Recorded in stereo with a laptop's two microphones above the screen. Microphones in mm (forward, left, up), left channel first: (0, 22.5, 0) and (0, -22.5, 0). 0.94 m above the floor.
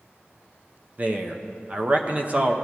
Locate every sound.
1.0 s a man speaking: 35° right (ahead or behind), 0.8 m